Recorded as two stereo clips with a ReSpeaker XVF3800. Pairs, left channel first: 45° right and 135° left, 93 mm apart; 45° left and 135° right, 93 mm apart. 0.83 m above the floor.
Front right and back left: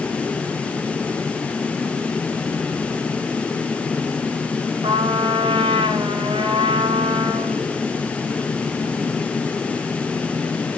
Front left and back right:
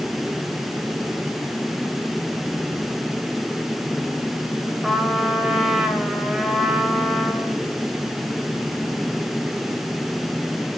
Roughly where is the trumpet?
Behind left.